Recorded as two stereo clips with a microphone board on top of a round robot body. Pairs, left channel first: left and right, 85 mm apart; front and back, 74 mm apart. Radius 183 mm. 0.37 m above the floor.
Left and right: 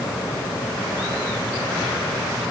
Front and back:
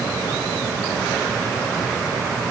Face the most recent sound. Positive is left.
No sound to turn to.